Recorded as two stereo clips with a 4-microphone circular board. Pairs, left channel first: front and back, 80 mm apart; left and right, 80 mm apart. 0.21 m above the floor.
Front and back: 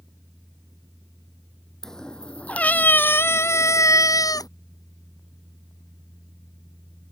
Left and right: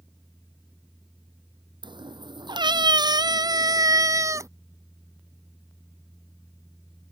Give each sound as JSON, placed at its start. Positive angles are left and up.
{"t": 1.8, "sound": "a cat meowing", "azimuth_deg": -85}